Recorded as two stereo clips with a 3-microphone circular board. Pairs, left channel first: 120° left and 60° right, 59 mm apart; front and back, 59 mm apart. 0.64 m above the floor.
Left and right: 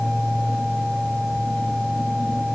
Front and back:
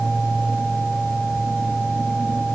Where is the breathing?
No breathing in this recording.